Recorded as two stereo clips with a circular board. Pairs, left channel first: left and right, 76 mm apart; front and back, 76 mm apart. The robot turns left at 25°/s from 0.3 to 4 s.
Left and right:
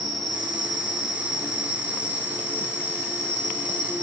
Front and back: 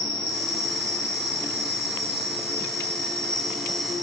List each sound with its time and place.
0.0 s an insect: 5° left, 1.4 m; by 4.0 s 85° right, 1.4 m